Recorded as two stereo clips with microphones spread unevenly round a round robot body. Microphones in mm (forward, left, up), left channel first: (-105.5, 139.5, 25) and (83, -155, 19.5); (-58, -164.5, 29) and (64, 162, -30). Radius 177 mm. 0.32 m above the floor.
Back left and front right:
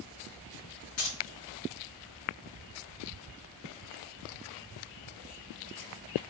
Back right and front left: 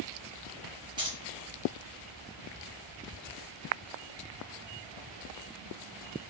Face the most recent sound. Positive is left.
turn(degrees=125)